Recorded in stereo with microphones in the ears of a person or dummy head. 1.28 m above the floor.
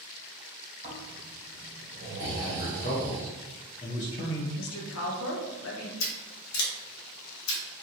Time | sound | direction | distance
0.8 | snoring | 30° right (ahead or behind) | 1.2 m
2.2 | a man speaking | 35° left (ahead or behind) | 0.5 m
4.6 | a woman speaking | 85° left | 0.7 m
6.0 | scissors | 75° left (ahead or behind) | 0.7 m